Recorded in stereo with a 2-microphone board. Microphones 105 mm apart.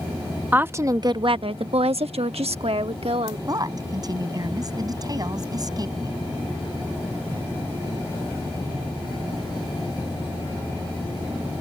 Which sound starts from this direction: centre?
A woman speaking, at 0.5 s.